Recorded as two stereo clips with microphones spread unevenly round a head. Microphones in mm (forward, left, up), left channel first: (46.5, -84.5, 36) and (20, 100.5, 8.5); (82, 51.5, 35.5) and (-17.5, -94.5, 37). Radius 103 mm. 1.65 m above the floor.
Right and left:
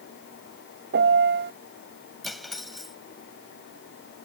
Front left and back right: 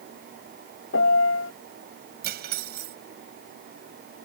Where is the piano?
65° left.